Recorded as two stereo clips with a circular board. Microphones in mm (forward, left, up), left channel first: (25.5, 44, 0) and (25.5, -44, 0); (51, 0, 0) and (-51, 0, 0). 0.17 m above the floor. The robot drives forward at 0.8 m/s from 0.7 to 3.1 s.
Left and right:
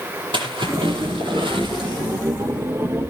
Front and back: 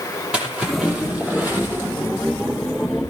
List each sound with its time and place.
0.3 s a splash: 105° right, 5.5 m; by 2.2 s 115° right, 5.5 m